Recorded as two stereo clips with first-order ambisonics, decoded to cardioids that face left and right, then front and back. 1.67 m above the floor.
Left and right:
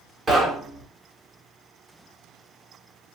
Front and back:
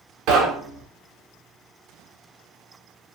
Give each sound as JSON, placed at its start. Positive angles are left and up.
{"t": 0.3, "sound": "knocking", "azimuth_deg": -155, "distance_m": 1.1}